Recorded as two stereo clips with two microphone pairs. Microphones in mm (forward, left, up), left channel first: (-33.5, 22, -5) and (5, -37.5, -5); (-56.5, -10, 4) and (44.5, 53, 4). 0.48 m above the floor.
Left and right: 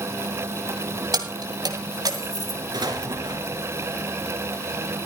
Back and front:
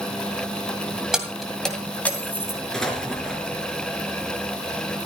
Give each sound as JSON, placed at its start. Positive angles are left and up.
{"t": 1.1, "sound": "keys jangling", "azimuth_deg": -55, "distance_m": 2.0}
{"t": 2.7, "sound": "an explosion", "azimuth_deg": -65, "distance_m": 3.0}